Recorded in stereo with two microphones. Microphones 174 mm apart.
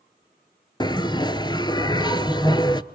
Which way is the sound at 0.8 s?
25° left (ahead or behind).